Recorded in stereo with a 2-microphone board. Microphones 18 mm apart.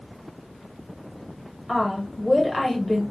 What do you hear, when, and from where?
1.7 s a woman speaking: 10° left (ahead or behind), 1.3 m